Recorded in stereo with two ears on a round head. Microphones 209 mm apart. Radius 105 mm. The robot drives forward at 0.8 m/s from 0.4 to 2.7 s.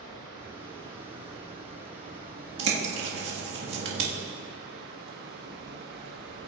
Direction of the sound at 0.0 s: 20° right (ahead or behind).